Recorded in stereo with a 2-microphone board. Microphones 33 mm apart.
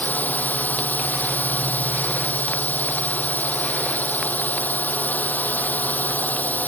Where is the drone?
60° left (ahead or behind).